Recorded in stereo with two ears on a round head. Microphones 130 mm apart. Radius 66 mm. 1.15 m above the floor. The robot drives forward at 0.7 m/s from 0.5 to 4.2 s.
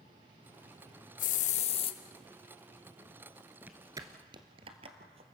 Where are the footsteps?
10° right (ahead or behind), 1.2 m; by 5.3 s 45° right (ahead or behind), 2 m.